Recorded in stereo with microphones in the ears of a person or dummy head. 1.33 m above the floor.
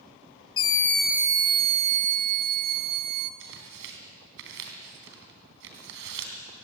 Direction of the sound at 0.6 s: 30° left (ahead or behind).